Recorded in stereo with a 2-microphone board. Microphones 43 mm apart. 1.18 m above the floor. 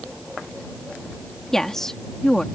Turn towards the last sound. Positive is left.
turn(degrees=10)  # may be behind; listen again after turning